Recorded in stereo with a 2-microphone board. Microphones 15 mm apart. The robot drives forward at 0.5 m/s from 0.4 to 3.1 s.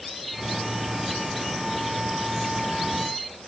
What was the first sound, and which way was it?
Only background noise.